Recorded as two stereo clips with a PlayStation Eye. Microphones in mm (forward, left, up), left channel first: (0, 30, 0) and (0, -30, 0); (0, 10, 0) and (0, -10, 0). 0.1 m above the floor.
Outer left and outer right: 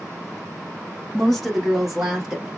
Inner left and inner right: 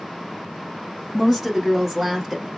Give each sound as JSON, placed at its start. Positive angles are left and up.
{"t": 1.1, "sound": "a woman speaking", "side_deg": 0, "distance_m": 1.5}